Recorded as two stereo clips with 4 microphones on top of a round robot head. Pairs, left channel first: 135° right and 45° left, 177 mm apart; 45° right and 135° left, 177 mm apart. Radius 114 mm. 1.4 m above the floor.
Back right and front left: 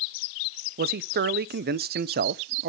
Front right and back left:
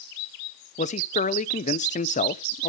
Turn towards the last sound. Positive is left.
turn(degrees=5)